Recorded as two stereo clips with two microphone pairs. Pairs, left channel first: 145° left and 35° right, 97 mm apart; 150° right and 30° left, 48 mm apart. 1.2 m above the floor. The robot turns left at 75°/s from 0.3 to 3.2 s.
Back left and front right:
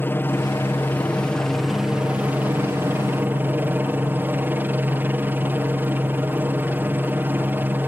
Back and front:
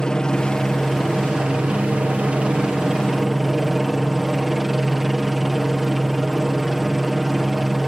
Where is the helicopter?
160° left; by 7.9 s 60° right.